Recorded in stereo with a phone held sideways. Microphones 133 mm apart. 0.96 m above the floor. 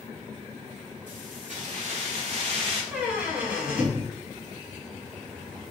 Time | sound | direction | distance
1.1 | keys jangling | 80° right | 1.4 m
2.9 | a squeak | 10° right (ahead or behind) | 0.7 m